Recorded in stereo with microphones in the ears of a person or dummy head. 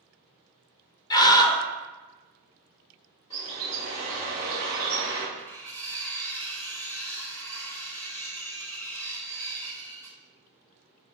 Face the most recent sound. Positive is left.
turn(degrees=10)  # may be behind; listen again after turning